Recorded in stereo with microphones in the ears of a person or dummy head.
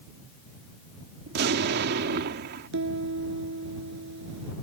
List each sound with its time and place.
1.3 s an explosion: 60° right (ahead or behind)
2.7 s a piano: 70° right (ahead or behind)